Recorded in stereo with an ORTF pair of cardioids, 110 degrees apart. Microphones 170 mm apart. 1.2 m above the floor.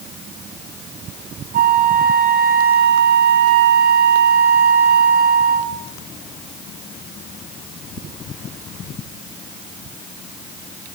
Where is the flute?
65° right, 3.5 m.